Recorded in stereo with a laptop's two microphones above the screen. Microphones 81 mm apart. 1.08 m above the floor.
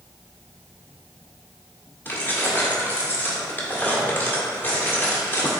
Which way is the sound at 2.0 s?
25° left (ahead or behind).